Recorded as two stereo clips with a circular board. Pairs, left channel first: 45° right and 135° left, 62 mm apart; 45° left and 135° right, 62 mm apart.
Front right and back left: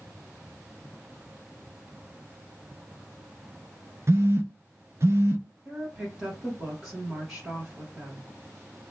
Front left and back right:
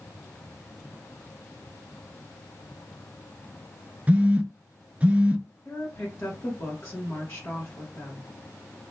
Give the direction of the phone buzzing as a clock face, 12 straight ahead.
7 o'clock.